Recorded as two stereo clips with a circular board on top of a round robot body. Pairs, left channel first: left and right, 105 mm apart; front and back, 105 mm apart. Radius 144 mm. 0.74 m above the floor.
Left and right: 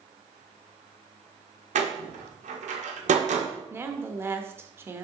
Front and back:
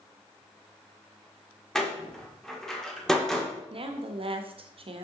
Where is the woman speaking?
155° right, 1.2 m.